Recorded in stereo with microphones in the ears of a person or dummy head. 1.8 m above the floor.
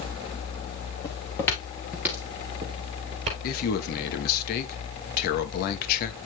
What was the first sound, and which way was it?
Footsteps, 25° left (ahead or behind).